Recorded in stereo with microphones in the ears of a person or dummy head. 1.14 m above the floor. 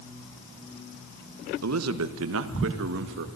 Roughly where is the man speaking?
Right.